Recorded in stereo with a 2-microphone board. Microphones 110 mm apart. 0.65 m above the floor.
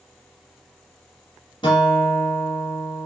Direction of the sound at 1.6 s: 45° left (ahead or behind).